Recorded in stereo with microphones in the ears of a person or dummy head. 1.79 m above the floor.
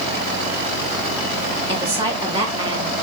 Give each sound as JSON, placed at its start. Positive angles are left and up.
{"t": 1.7, "sound": "a woman speaking", "side_deg": -30, "distance_m": 1.5}